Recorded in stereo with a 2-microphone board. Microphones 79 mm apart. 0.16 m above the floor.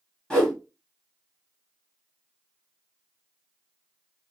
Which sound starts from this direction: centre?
A whoosh, at 0.3 s.